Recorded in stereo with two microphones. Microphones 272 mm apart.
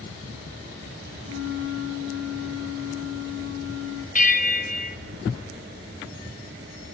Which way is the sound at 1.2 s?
55° right (ahead or behind).